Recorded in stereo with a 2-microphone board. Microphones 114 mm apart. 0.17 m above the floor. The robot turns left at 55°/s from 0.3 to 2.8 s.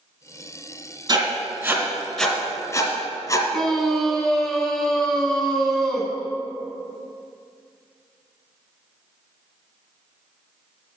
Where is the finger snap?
I don't hear a finger snap.